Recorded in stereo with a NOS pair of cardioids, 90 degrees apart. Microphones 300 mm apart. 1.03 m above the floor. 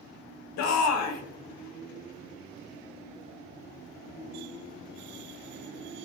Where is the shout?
65° left, 0.6 m.